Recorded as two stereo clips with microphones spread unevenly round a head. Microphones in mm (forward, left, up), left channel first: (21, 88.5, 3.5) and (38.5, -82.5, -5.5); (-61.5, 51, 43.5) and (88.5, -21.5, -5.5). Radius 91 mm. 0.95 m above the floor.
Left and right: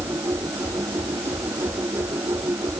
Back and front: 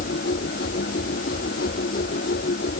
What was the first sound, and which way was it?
A machine running, 165° right.